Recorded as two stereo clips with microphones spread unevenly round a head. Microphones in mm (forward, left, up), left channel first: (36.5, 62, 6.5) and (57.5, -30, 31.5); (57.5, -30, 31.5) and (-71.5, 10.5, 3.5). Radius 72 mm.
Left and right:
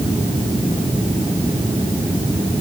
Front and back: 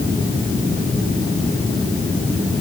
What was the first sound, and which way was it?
Only background noise.